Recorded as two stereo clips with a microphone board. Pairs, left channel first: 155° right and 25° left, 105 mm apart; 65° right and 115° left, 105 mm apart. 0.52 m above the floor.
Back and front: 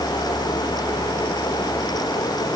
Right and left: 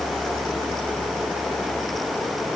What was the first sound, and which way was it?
Only background noise.